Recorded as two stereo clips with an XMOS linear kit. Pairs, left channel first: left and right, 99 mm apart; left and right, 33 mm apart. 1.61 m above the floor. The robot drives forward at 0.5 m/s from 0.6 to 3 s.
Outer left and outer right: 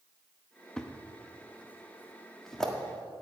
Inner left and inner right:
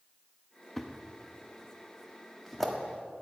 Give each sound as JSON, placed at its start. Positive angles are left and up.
{"t": 0.8, "sound": "a thud", "side_deg": 10, "distance_m": 1.0}